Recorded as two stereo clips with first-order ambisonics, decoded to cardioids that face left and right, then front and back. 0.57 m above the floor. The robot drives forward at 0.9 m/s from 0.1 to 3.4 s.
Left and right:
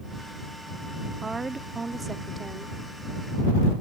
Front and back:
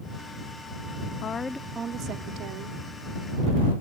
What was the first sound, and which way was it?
A woman speaking, 20° right.